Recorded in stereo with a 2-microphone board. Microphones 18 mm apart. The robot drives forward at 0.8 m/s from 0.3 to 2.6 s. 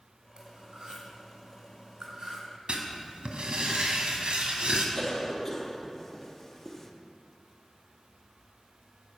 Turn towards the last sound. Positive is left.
turn(degrees=25)  # may be behind; listen again after turning